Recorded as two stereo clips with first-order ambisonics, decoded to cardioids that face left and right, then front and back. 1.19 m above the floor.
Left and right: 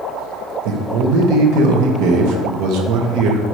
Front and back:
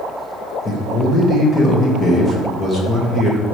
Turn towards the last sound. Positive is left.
turn(degrees=-75)